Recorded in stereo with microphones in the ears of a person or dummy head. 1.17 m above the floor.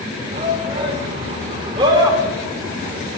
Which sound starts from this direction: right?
A shout, at 0.3 s.